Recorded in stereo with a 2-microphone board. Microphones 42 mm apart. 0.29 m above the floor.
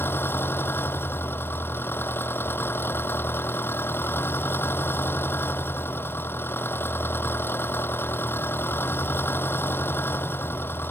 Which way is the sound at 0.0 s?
55° left (ahead or behind).